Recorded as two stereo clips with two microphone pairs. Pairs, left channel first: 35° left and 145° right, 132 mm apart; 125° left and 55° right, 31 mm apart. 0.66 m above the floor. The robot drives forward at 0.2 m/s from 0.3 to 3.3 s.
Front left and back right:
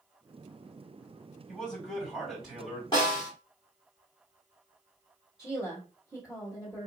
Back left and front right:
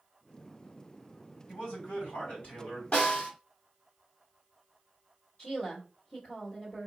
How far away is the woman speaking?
About 1.6 m.